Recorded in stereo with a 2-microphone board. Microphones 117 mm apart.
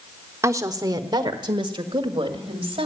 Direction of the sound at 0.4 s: 25° right (ahead or behind).